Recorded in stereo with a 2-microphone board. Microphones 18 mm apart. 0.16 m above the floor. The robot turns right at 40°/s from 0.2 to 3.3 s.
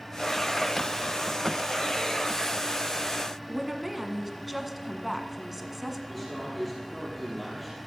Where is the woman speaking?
10° right (ahead or behind), 1.5 m.